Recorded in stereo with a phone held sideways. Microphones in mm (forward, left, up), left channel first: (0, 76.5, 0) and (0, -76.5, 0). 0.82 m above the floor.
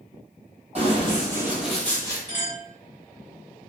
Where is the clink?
60° right (ahead or behind), 1.9 m.